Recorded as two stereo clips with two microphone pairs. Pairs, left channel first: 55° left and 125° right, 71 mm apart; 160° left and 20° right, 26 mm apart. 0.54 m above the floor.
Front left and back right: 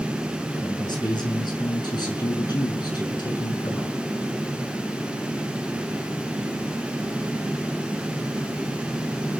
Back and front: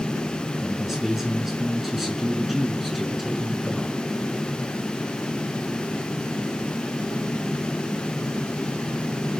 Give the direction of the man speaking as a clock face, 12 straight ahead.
10 o'clock.